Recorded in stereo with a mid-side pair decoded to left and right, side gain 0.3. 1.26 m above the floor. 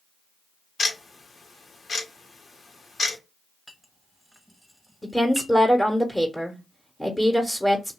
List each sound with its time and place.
0.8 s ticking: 60° left, 1.1 m
3.7 s a clink: 5° right, 1.1 m
5.0 s a woman speaking: 10° left, 0.9 m